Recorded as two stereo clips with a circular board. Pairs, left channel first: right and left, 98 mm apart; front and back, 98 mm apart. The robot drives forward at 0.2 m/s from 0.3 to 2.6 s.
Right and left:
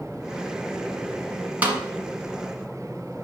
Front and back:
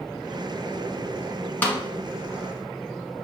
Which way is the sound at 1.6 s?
40° left.